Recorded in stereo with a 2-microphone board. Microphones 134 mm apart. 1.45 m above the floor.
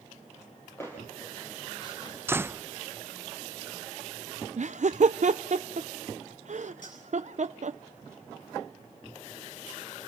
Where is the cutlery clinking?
75° left (ahead or behind), 8.5 m.